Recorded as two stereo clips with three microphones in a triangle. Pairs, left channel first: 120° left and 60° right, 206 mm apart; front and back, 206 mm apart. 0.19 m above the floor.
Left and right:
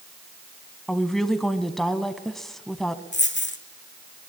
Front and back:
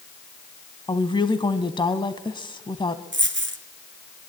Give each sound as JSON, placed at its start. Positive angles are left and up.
{"t": 0.9, "sound": "a woman speaking", "azimuth_deg": 35, "distance_m": 1.2}
{"t": 3.1, "sound": "a dropped coin", "azimuth_deg": 150, "distance_m": 1.6}